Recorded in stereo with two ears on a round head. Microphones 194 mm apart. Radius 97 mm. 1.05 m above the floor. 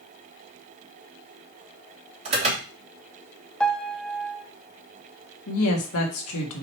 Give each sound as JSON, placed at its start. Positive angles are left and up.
{"t": 2.2, "sound": "an alarm", "side_deg": -30, "distance_m": 3.5}
{"t": 3.6, "sound": "a piano", "side_deg": 5, "distance_m": 0.8}
{"t": 5.5, "sound": "a woman speaking", "side_deg": 75, "distance_m": 1.9}